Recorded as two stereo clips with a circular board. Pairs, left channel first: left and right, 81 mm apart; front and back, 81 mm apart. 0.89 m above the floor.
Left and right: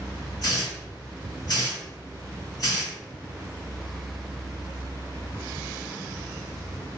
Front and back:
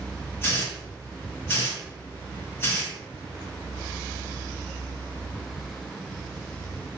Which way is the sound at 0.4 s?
65° left.